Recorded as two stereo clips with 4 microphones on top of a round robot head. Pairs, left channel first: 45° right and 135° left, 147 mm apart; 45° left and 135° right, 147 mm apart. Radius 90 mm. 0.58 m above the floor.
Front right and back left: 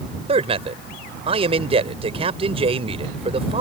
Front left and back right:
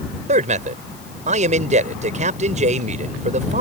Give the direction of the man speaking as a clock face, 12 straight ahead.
6 o'clock.